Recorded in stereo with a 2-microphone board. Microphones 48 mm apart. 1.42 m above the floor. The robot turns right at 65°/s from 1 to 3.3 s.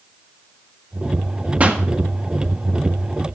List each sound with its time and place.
1.6 s a pop: 30° right (ahead or behind), 1.5 m; by 1.8 s 15° right (ahead or behind), 1.5 m